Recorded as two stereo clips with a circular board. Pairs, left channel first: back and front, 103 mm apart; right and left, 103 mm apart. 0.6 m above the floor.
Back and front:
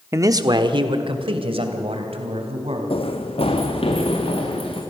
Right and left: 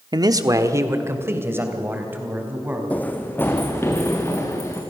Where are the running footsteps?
165° right, 1.5 m; by 4.8 s 155° right, 3.5 m.